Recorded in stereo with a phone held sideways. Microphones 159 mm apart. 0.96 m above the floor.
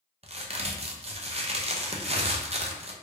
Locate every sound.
0.2 s a crack: 45° right (ahead or behind), 0.5 m